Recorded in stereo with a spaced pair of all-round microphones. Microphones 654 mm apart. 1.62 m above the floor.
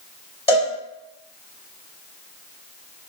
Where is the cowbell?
10° left (ahead or behind), 1.8 m.